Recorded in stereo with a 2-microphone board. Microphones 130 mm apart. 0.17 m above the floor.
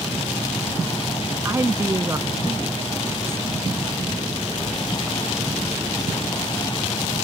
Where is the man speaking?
25° right (ahead or behind); by 3.4 s 20° right (ahead or behind).